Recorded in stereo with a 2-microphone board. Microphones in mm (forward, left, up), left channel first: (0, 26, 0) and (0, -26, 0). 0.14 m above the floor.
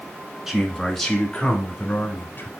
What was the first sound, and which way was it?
A man speaking, 5° right (ahead or behind).